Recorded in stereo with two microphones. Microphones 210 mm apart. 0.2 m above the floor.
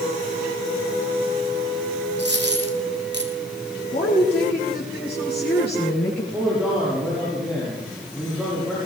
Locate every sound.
2.2 s a dropped coin: 55° right (ahead or behind), 1.8 m
3.9 s a woman speaking: 50° left (ahead or behind), 4 m
6.3 s a man speaking: 5° right (ahead or behind), 6.5 m